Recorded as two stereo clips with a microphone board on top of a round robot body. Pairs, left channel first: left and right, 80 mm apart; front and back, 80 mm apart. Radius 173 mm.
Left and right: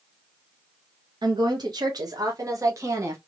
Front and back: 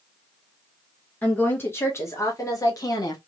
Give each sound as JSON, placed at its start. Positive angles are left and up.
{"t": 1.2, "sound": "a woman speaking", "azimuth_deg": -70, "distance_m": 1.8}